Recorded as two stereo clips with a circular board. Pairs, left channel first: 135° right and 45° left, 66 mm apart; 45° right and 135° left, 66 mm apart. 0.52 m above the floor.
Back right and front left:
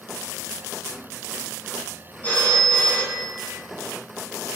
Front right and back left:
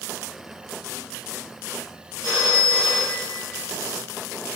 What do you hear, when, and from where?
2.2 s a phone ringing: 70° right, 2.5 m